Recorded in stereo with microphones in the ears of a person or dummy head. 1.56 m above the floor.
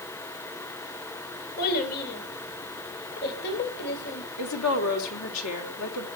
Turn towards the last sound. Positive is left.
turn(degrees=80)